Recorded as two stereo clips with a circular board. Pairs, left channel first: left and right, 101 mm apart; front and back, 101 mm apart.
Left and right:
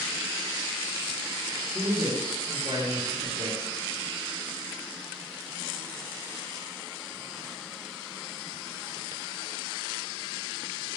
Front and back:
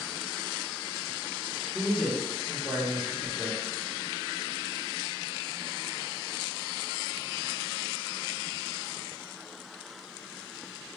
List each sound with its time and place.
1.7 s a man speaking: 100° right, 1.8 m